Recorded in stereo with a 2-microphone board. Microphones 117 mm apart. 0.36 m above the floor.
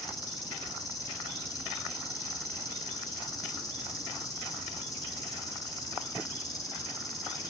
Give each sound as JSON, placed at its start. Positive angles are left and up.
{"t": 0.0, "sound": "an insect", "side_deg": 35, "distance_m": 1.0}